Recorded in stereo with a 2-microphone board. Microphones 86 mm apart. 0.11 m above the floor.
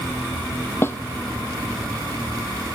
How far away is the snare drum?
About 0.5 m.